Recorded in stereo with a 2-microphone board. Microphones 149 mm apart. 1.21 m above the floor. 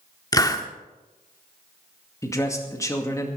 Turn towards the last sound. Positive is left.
turn(degrees=20)  # may be behind; listen again after turning